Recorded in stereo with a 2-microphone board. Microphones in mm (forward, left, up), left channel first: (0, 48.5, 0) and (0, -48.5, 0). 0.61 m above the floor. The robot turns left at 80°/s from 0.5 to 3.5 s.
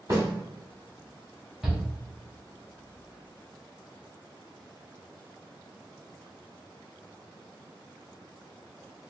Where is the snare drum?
40° right (ahead or behind), 1.6 m.